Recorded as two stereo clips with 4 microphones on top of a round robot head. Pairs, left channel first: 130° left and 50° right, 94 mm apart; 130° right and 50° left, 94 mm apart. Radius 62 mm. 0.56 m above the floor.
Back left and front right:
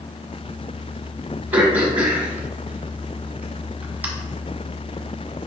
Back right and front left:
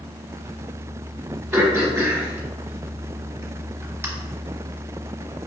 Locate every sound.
1.5 s throat clearing: 5° left, 1.3 m